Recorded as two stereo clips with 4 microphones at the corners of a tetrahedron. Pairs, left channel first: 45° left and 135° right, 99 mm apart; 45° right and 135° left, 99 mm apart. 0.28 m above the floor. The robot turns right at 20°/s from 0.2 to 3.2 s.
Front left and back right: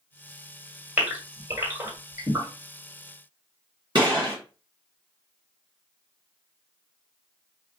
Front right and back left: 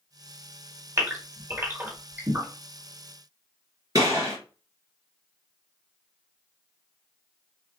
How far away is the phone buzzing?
I don't hear a phone buzzing.